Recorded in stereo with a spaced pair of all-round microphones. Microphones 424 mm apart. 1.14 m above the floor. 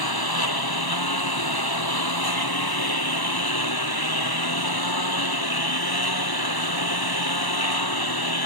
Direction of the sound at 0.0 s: 55° left (ahead or behind).